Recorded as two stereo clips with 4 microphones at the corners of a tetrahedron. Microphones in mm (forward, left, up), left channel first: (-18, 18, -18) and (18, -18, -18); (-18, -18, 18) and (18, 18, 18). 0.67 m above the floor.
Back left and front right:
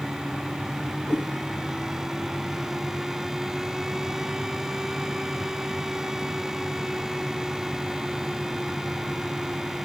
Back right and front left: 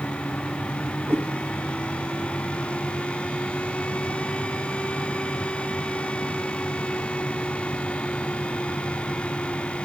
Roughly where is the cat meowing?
Left.